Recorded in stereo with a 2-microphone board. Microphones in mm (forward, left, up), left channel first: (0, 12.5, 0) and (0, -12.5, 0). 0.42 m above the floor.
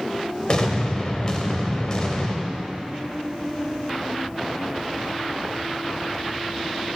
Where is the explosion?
35° left (ahead or behind), 0.7 m.